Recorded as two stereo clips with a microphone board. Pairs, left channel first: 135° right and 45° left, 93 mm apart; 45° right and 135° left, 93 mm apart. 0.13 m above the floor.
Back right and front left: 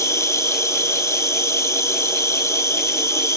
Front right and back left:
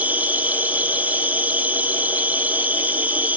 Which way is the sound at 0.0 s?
165° right.